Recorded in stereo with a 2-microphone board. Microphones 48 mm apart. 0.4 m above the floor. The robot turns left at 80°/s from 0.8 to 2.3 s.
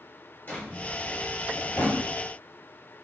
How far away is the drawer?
About 4 m.